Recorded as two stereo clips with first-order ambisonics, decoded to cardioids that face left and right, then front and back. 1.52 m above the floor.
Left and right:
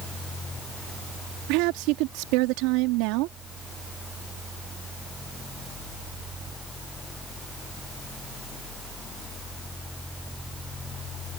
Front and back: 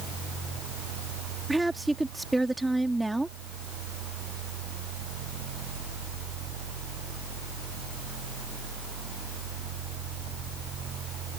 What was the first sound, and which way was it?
A woman speaking, 95° right.